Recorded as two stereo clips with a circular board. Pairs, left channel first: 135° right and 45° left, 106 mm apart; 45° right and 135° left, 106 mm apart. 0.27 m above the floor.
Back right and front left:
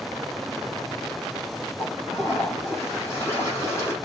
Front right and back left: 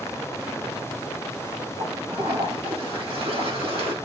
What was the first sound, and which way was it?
A toilet flushing, 160° left.